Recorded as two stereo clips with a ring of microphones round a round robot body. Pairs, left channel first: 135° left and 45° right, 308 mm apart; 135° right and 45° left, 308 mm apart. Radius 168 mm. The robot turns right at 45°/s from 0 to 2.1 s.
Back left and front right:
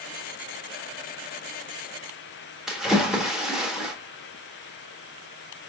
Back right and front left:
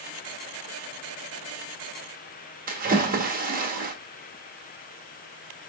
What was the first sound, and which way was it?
A splash, 40° left.